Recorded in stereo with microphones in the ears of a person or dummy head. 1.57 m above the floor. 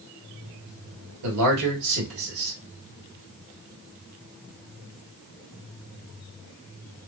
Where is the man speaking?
90° right, 1.7 m.